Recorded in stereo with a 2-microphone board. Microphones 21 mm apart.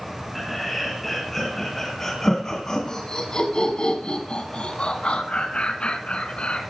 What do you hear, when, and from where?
0.3 s laughter: 5° left (ahead or behind), 3 m; by 6.6 s 55° left (ahead or behind), 3 m